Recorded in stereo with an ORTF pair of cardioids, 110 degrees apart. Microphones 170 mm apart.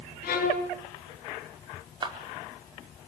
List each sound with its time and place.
0.2 s a violin: 65° left, 4.5 m
2.0 s a clap: 25° right, 4 m